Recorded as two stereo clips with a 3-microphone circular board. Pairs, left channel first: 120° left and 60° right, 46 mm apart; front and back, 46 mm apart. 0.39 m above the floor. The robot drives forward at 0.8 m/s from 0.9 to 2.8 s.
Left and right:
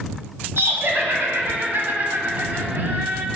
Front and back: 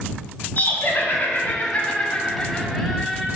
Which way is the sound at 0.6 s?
40° right.